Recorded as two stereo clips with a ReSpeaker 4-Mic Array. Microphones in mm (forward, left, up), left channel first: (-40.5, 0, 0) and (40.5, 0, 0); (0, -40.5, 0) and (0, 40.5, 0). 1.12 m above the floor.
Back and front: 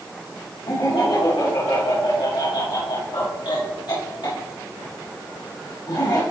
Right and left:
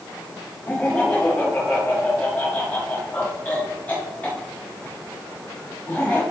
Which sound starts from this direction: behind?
Laughter, at 0.7 s.